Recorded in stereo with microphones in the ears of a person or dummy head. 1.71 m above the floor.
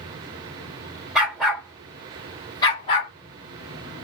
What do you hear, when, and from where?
1.1 s a dog barking: 5° right (ahead or behind), 1.7 m; by 3.1 s 35° left (ahead or behind), 1.6 m